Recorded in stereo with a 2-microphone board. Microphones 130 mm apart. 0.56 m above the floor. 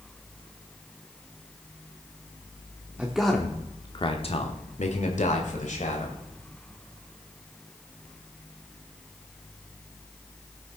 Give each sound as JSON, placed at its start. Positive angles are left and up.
{"t": 3.0, "sound": "a man speaking", "side_deg": -10, "distance_m": 1.1}